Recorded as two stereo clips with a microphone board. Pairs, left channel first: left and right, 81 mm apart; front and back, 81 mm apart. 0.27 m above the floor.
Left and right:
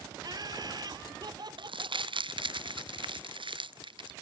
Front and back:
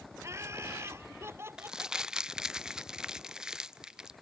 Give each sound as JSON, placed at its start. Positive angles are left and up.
{"t": 0.2, "sound": "laughter", "azimuth_deg": -125}
{"t": 1.6, "sound": "crumpling", "azimuth_deg": -100}